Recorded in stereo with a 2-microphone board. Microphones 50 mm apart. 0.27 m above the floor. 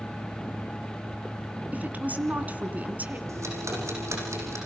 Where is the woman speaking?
35° right (ahead or behind), 2.5 m.